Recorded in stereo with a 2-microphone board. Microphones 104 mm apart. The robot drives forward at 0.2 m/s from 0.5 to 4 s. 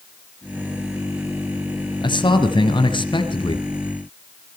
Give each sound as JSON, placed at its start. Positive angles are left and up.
{"t": 2.0, "sound": "a man speaking", "side_deg": 50, "distance_m": 1.9}